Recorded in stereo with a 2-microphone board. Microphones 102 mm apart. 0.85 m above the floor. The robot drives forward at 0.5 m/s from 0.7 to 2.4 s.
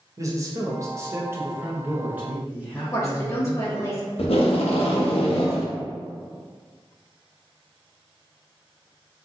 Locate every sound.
0.2 s a man speaking: 30° right (ahead or behind), 0.6 m; by 3.8 s 15° right (ahead or behind), 1.3 m
2.8 s a woman speaking: 30° left (ahead or behind), 0.6 m
4.2 s tape being pulled: 75° left (ahead or behind), 0.6 m